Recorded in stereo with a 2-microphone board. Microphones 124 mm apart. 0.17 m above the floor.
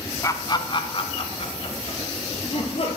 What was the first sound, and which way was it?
Laughter, 25° left (ahead or behind).